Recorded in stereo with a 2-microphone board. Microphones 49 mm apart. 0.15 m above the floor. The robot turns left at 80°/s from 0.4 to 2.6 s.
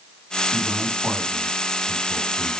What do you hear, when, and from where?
0.5 s a man speaking: 65° right (ahead or behind), 5.5 m; by 2.5 s 75° left (ahead or behind), 5.5 m